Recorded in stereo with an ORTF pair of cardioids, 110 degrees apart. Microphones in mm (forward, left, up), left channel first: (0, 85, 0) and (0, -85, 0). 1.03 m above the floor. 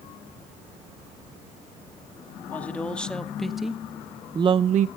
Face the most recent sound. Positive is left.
turn(degrees=-80)